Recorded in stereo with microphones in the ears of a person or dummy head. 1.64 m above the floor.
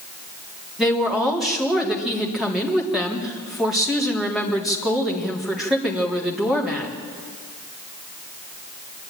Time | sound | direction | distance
0.8 | a woman speaking | 10° right (ahead or behind) | 3.5 m